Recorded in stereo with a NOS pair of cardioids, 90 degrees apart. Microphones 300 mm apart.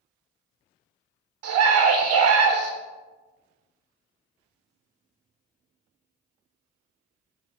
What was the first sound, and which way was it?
A scream, 65° right.